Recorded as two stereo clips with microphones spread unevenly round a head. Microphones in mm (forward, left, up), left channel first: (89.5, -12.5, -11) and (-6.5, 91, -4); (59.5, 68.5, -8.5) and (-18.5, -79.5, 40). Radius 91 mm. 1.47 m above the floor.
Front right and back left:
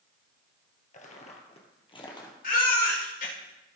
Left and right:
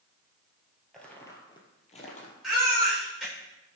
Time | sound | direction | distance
0.9 | footsteps | 40° right | 2.5 m
2.4 | a baby crying | 30° right | 4.5 m